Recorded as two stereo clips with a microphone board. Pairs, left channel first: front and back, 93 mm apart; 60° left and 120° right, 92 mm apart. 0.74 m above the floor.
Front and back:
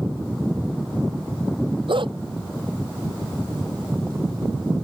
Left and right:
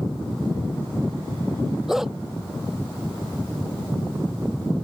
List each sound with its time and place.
1.9 s a dog barking: 155° left